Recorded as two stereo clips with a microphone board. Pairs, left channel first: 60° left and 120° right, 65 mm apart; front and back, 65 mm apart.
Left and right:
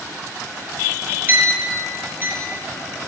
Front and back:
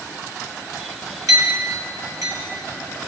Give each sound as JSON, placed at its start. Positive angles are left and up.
{"t": 1.3, "sound": "a clink", "azimuth_deg": 180, "distance_m": 1.8}